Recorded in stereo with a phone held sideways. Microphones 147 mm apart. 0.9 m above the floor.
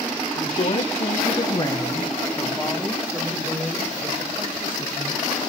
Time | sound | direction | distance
0.3 | a woman speaking | 75° left (ahead or behind) | 2 m